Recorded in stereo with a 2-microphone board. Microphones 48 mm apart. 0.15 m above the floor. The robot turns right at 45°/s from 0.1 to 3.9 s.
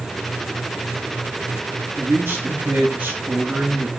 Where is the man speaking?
95° right, 2.5 m; by 3.9 s 5° right, 2.5 m.